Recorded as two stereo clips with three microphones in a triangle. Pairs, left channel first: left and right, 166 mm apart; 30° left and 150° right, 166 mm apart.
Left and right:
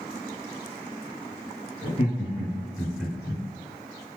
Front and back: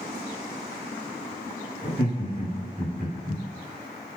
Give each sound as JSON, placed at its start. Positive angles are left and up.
{"t": 1.8, "sound": "laughter", "azimuth_deg": 80, "distance_m": 2.0}